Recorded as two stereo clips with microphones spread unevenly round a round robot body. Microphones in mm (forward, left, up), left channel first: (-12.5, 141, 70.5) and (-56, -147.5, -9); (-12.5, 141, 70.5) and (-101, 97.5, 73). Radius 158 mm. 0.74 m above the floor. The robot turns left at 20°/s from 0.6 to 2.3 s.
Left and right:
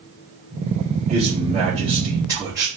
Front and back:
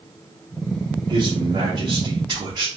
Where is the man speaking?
130° right, 1.3 m; by 2.7 s 155° right, 1.3 m.